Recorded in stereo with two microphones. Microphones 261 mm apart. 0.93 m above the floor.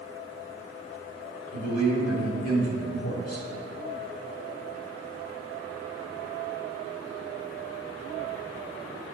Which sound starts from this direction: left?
A man speaking, at 1.5 s.